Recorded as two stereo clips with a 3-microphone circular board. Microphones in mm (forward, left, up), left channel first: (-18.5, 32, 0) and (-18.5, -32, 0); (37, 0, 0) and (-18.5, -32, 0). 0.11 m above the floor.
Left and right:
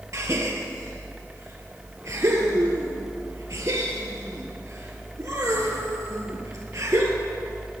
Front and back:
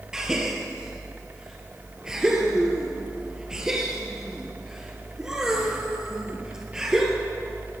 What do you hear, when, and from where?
0.1 s a gasp: 75° right, 1.5 m